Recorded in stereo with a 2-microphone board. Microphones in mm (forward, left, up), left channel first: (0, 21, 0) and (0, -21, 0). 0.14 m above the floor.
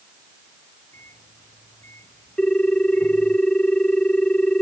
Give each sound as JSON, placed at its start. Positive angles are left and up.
{"t": 0.9, "sound": "a microwave", "side_deg": 80}
{"t": 2.4, "sound": "a ringtone", "side_deg": 25}